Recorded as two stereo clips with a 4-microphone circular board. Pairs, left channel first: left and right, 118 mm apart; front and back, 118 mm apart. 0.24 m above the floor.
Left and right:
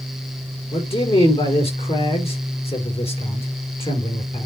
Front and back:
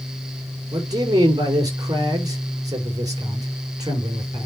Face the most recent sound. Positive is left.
turn(degrees=125)